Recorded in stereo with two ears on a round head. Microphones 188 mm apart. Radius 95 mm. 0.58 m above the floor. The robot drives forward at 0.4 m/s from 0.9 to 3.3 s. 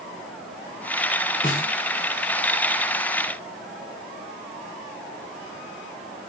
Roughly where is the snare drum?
Left.